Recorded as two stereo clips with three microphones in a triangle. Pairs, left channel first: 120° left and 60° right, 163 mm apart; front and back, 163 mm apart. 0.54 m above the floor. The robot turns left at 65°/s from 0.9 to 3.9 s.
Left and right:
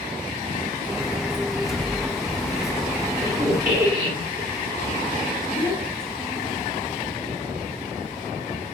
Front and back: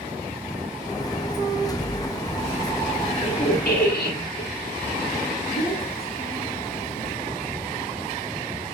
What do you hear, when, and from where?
1.5 s an explosion: 25° left, 0.9 m; by 2.9 s 65° right, 0.9 m
3.1 s a squeak: 50° left, 3 m; by 4.5 s 5° left, 3 m
5.5 s a child speaking: 15° left, 3 m